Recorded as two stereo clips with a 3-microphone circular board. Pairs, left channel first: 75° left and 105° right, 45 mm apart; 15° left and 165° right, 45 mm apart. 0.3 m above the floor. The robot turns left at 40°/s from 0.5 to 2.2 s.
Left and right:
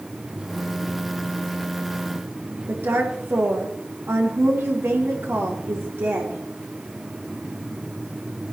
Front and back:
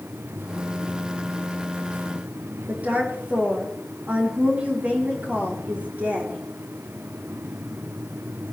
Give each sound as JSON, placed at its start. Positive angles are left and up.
{"t": 2.7, "sound": "a woman speaking", "azimuth_deg": -110, "distance_m": 5.5}